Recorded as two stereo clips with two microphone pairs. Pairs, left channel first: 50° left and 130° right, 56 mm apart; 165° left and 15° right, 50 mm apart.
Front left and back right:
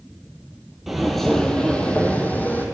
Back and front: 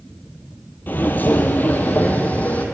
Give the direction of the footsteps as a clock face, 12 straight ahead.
7 o'clock.